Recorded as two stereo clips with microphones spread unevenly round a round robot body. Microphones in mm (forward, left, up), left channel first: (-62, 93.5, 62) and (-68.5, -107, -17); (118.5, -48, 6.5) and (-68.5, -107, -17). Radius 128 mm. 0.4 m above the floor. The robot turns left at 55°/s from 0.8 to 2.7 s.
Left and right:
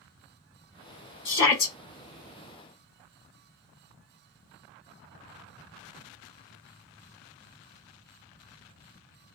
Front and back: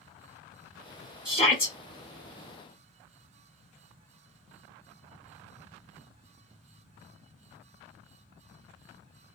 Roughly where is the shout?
Left.